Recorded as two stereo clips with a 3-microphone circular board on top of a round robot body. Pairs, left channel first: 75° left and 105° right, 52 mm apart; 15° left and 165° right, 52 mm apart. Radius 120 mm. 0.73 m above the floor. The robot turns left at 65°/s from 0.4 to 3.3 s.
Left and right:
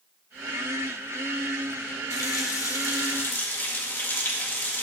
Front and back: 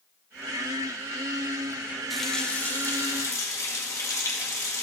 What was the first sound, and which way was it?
A running tap, 105° left.